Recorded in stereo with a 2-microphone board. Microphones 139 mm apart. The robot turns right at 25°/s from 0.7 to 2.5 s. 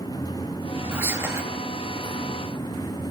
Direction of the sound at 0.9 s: 15° right (ahead or behind).